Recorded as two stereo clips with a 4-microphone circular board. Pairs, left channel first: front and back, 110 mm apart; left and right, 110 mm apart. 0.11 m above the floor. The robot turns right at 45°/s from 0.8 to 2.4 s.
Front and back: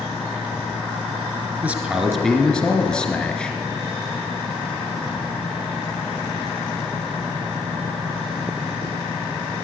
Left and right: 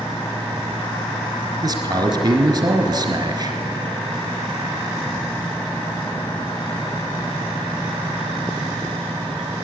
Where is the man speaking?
115° right, 1.5 m; by 3.6 s 80° right, 1.5 m.